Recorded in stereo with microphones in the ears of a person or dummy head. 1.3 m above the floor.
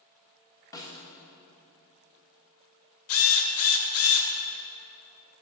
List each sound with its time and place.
0.7 s a snare drum: 20° left (ahead or behind), 1.1 m
3.1 s a drill: 70° left (ahead or behind), 1.5 m